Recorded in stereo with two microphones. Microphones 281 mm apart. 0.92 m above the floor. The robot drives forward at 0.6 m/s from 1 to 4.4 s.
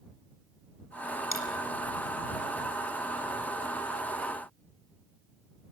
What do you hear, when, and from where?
1.3 s a dropped coin: 45° left (ahead or behind), 2 m